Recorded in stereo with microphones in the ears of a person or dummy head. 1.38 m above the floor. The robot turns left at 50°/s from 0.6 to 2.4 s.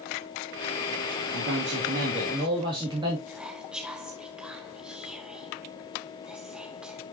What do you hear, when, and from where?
1.3 s a man speaking: 100° right, 2.5 m; by 3.2 s 155° right, 2.5 m
3.3 s whispering: 5° right (ahead or behind), 0.9 m